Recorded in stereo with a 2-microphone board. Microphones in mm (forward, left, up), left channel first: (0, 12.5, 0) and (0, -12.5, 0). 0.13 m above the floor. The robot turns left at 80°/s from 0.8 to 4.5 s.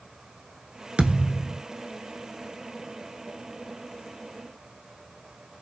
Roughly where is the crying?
No crying in this recording.